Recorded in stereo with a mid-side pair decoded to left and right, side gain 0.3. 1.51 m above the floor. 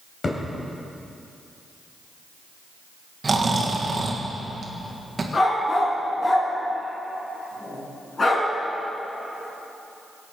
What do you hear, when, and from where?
0.2 s a thud: 50° left, 3.5 m
3.2 s snoring: 45° right, 1.7 m
5.3 s a dog barking: 45° left, 4 m